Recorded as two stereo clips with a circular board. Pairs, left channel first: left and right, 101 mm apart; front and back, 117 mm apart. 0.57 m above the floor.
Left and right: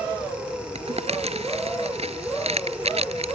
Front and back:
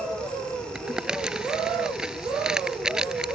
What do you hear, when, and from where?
0.8 s crumpling: 95° right